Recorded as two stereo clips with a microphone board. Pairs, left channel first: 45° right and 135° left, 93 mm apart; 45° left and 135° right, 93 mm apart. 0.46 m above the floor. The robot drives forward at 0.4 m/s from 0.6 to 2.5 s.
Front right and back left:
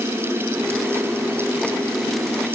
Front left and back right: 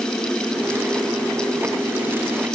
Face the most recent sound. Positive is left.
No sound to turn to.